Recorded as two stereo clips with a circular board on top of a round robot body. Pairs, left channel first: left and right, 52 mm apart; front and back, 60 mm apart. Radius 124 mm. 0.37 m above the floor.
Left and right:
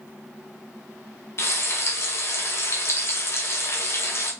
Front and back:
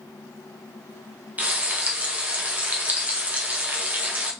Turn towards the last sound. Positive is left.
turn(degrees=120)